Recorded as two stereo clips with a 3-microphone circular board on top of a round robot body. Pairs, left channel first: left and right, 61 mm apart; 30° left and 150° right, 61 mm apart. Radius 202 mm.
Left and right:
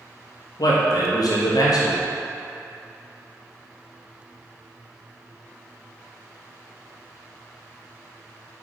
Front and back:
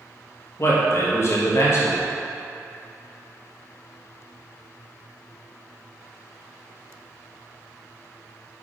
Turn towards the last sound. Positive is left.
turn(degrees=75)